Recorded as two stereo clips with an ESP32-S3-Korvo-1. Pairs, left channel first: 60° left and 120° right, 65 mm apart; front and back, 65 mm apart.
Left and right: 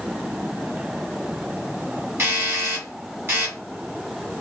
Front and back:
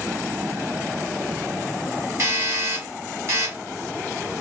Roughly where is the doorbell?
Behind.